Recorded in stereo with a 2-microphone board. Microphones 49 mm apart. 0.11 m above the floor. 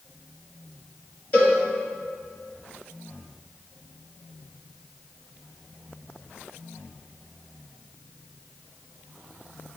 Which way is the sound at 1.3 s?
35° left (ahead or behind).